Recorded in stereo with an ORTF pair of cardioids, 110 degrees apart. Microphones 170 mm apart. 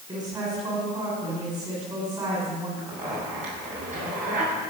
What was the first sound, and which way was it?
A woman speaking, 25° right.